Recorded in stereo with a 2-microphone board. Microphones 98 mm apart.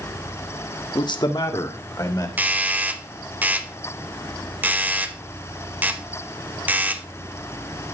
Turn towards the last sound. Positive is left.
turn(degrees=-20)  # may be behind; listen again after turning